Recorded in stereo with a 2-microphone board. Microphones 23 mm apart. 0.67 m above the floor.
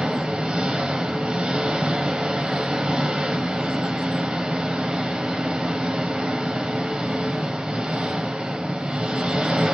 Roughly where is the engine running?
Right.